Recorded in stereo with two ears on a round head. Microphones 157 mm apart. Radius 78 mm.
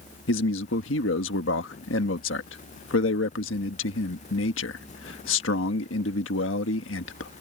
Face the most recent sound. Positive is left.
turn(degrees=80)